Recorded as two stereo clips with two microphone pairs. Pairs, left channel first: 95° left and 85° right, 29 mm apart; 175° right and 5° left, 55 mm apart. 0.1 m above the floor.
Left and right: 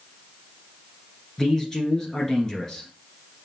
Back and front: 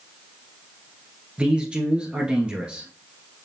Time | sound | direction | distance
1.4 | a man speaking | 50° left | 1.4 m